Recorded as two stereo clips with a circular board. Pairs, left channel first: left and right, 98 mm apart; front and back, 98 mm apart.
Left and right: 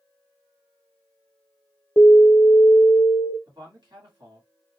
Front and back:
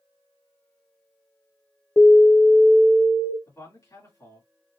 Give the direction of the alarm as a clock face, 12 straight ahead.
11 o'clock.